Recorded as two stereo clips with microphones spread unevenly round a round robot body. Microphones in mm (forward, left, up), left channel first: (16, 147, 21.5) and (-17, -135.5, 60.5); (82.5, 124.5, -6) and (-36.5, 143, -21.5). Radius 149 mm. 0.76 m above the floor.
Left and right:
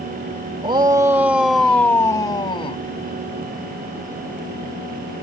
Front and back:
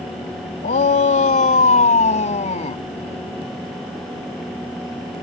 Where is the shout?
25° right; by 2.8 s 10° left.